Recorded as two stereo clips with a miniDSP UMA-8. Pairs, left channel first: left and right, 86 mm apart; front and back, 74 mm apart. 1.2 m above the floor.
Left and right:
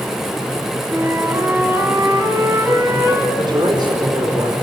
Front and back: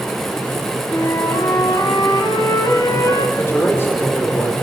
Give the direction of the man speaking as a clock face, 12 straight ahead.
2 o'clock.